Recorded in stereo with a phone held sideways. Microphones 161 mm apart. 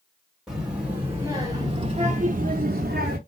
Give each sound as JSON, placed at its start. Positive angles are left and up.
{"t": 0.5, "sound": "a child speaking", "side_deg": -5, "distance_m": 1.3}